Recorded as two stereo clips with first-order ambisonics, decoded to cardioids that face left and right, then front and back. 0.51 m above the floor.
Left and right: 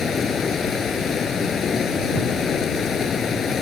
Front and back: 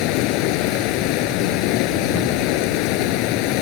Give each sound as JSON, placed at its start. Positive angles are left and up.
{"t": 0.0, "sound": "running water", "azimuth_deg": 20}